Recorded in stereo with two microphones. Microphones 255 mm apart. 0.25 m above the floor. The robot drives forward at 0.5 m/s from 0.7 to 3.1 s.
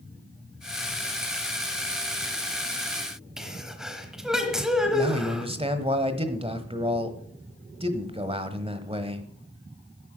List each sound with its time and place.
3.4 s a sneeze: centre (ahead or behind), 1.2 m
4.9 s a man speaking: 20° right (ahead or behind), 1.1 m